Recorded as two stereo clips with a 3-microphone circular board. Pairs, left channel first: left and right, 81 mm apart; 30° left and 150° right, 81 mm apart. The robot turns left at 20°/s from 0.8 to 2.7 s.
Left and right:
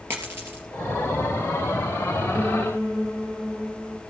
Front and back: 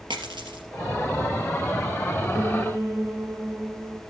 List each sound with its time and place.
0.1 s a dropped coin: 155° right, 3 m
2.3 s a piano: 150° left, 2 m; by 4.0 s 145° left, 2 m